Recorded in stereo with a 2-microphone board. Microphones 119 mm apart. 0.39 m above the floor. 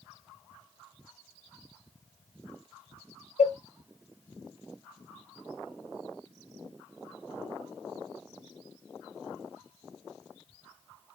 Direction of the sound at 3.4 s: 80° left.